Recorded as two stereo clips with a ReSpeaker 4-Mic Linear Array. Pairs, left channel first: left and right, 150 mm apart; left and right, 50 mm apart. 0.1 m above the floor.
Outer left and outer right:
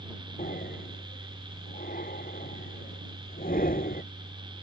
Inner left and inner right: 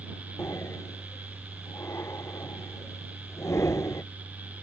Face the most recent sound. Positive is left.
turn(degrees=70)  # may be behind; listen again after turning